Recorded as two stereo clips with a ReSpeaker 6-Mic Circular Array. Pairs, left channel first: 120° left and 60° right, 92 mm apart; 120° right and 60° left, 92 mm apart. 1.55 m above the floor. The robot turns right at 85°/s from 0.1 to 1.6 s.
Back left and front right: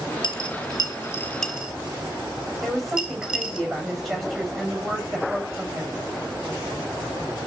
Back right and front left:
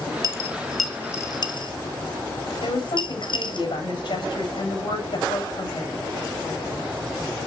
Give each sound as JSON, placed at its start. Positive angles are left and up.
{"t": 0.2, "sound": "a dropped coin", "azimuth_deg": 105, "distance_m": 3.0}
{"t": 2.6, "sound": "a woman speaking", "azimuth_deg": -155, "distance_m": 8.5}